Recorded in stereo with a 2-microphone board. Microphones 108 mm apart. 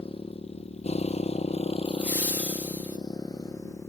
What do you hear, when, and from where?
0.0 s a motorcycle: 60° left (ahead or behind); by 3.9 s 30° left (ahead or behind)
1.9 s laughter: 15° right (ahead or behind)